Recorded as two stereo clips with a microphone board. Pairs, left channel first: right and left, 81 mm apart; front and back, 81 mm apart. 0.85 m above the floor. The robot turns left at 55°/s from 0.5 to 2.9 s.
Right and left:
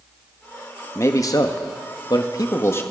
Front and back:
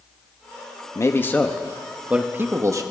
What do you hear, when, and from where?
0.9 s a man speaking: 40° right, 1.0 m; by 2.8 s 145° right, 1.0 m